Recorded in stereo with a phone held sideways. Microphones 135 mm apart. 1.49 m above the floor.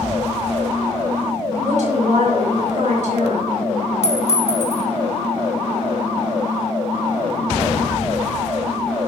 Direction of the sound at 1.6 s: 65° right (ahead or behind).